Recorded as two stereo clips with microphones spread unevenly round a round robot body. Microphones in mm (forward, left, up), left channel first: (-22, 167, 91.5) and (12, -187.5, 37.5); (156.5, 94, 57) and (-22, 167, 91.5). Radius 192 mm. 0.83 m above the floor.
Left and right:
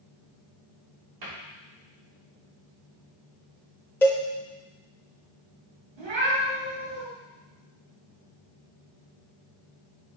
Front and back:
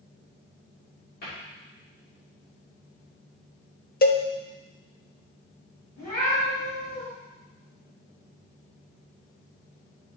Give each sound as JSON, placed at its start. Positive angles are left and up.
{"t": 1.2, "sound": "a cupboard door", "azimuth_deg": -60, "distance_m": 2.5}
{"t": 4.0, "sound": "a cowbell", "azimuth_deg": 20, "distance_m": 0.7}
{"t": 6.0, "sound": "a cat meowing", "azimuth_deg": -95, "distance_m": 3.5}